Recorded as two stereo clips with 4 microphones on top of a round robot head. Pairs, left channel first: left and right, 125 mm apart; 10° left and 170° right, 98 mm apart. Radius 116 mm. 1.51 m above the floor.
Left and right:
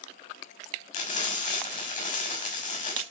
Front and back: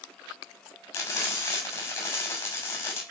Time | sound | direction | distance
0.9 | frying | 70° left | 6.5 m